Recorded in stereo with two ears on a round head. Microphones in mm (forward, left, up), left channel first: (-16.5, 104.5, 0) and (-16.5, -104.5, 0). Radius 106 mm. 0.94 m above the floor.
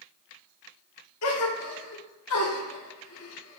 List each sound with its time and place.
1.2 s a gasp: 65° left (ahead or behind), 1.3 m